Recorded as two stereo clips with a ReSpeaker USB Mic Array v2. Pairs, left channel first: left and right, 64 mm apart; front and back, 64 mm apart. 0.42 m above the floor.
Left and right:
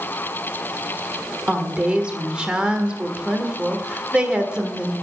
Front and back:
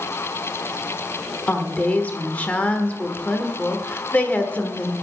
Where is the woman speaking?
35° right, 1.4 m.